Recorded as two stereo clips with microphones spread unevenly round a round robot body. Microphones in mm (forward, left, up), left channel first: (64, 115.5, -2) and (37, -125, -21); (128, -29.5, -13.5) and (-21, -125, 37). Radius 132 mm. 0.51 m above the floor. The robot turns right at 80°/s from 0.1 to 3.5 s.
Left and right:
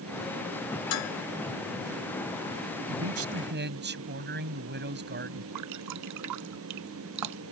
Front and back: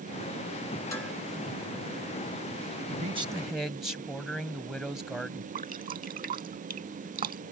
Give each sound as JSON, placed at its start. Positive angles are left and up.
{"t": 0.9, "sound": "dishes clattering", "azimuth_deg": 115}
{"t": 2.9, "sound": "a man speaking", "azimuth_deg": -105}
{"t": 5.5, "sound": "dripping", "azimuth_deg": -115}